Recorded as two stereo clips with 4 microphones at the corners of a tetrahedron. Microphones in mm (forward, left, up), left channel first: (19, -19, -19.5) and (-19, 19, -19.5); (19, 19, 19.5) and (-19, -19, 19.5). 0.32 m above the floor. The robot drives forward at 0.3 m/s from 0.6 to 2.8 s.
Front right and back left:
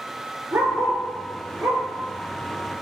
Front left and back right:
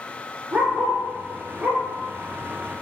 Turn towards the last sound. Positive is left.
turn(degrees=180)